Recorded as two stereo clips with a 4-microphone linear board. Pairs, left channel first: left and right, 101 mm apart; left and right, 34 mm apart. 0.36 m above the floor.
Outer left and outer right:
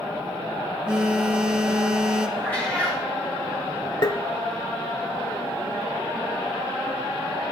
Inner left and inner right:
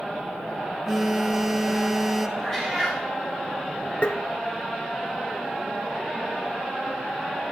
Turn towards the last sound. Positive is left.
turn(degrees=45)  # may be behind; listen again after turning